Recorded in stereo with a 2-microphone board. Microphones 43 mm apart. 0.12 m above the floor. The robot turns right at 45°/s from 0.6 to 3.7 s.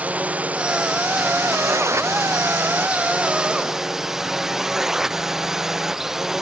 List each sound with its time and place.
0.0 s a drone: 150° right; by 6.4 s 10° right